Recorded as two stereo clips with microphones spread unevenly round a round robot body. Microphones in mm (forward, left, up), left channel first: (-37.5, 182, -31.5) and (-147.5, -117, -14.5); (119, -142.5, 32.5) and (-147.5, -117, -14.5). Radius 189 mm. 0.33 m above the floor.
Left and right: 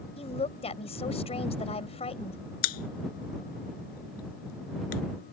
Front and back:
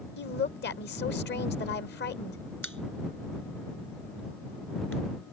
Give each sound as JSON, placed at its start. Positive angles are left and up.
{"t": 0.2, "sound": "a woman speaking", "azimuth_deg": 20}
{"t": 2.6, "sound": "a pop", "azimuth_deg": 80}